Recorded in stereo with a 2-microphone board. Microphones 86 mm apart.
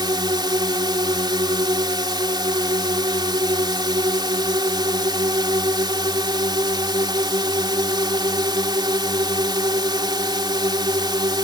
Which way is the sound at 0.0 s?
60° right (ahead or behind).